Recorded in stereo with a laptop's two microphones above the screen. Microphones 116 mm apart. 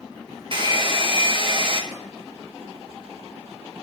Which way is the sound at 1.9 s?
70° right (ahead or behind).